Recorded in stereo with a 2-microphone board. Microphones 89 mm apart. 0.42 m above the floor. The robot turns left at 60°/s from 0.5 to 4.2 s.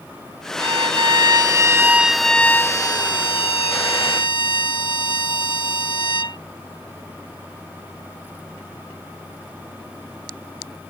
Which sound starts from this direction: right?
A violin, at 0.6 s.